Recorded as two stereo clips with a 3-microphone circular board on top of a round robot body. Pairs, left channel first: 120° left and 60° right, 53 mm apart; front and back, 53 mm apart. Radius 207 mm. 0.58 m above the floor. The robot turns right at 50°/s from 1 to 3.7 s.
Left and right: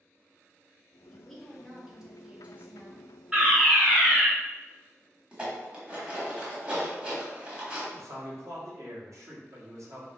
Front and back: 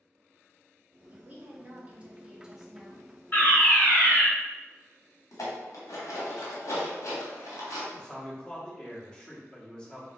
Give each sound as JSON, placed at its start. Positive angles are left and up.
{"t": 1.1, "sound": "a woman speaking", "azimuth_deg": -175, "distance_m": 1.1}
{"t": 3.3, "sound": "a fire alarm", "azimuth_deg": 0, "distance_m": 2.0}
{"t": 5.3, "sound": "dishes clattering", "azimuth_deg": 10, "distance_m": 1.1}
{"t": 7.9, "sound": "a man speaking", "azimuth_deg": -70, "distance_m": 1.5}